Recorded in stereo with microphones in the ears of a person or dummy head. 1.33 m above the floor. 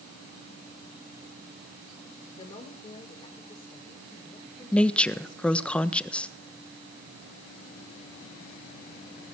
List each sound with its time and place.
2.3 s a woman speaking: 30° left (ahead or behind), 4.5 m; by 5.7 s 25° left (ahead or behind), 6.5 m
4.7 s a woman speaking: 5° left (ahead or behind), 1.3 m